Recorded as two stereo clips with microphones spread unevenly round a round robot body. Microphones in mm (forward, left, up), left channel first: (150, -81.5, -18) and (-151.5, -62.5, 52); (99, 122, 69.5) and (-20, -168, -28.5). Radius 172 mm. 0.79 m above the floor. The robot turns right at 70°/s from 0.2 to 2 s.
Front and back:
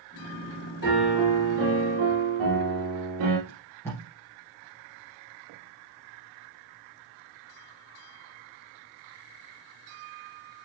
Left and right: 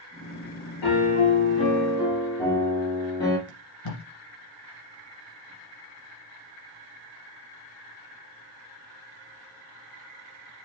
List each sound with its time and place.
0.8 s a piano: 60° left, 3 m; by 3.4 s 145° left, 3 m
3.5 s tape being pulled: 85° left, 2.5 m